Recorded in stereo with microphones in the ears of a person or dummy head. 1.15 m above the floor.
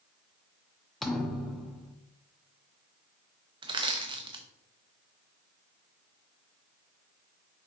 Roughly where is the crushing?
Right.